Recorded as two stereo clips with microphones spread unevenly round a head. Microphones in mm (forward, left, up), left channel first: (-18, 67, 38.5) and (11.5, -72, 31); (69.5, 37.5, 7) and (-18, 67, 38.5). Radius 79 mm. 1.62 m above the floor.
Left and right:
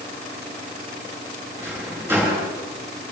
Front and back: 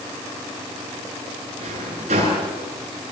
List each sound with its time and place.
1.6 s a drawer: 155° right, 9.5 m